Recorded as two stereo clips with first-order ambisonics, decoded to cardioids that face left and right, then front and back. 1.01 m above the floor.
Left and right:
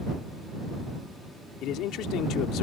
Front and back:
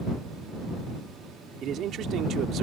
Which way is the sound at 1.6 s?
130° left.